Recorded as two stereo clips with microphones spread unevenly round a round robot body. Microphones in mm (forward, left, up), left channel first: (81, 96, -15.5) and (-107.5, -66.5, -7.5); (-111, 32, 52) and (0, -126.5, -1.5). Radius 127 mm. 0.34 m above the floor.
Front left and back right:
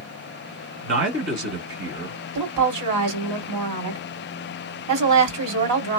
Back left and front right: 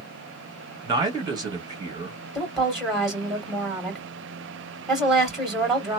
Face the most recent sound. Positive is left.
turn(degrees=-135)